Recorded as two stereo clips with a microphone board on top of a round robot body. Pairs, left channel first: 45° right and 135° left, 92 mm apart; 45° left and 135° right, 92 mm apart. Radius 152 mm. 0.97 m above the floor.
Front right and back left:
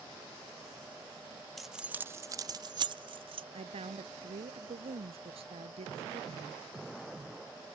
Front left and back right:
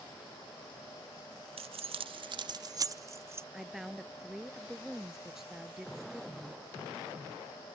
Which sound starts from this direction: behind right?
Keys jangling, at 1.6 s.